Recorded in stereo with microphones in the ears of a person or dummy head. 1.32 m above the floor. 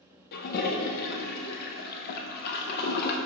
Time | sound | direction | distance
0.3 | a toilet flushing | 50° left (ahead or behind) | 0.7 m